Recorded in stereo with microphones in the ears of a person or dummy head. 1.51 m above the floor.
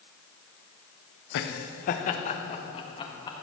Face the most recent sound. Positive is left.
turn(degrees=25)  # may be behind; listen again after turning